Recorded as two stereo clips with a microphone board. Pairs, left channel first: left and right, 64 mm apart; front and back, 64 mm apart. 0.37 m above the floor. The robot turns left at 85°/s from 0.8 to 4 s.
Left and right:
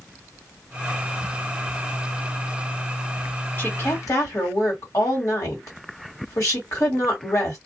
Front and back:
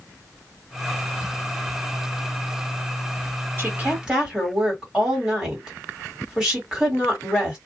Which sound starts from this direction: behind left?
A woman speaking, at 3.6 s.